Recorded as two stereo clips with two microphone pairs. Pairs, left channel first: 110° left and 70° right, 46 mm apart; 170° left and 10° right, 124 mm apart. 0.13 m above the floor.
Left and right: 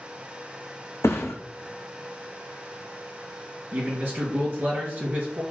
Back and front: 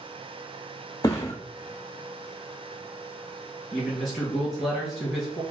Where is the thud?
110° left, 0.9 m.